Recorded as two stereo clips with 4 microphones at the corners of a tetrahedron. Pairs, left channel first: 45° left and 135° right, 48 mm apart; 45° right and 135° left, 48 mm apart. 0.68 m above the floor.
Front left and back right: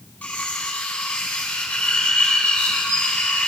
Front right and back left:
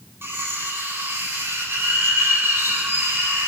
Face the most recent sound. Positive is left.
turn(degrees=105)